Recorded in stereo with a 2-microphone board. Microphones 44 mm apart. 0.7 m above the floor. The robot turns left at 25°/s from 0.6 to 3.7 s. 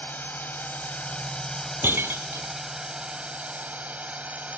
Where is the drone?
40° left; by 4.6 s 35° right.